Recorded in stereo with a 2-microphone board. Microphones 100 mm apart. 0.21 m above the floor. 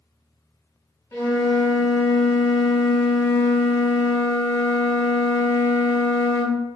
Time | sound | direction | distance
1.1 | a flute | 30° left (ahead or behind) | 0.8 m